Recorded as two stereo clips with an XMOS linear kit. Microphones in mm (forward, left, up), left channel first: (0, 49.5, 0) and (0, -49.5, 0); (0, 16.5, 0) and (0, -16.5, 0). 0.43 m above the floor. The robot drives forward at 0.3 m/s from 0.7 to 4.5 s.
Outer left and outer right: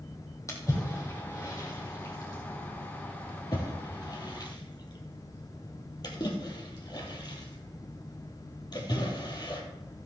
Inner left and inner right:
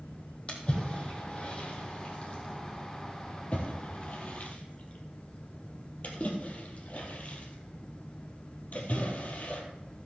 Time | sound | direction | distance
0.5 | a splash | 30° left (ahead or behind) | 3.5 m